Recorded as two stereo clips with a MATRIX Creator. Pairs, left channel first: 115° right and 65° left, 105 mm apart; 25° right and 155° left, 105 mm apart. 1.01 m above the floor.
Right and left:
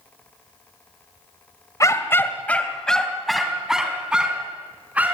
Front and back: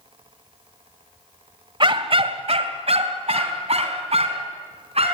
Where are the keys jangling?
No keys jangling in this recording.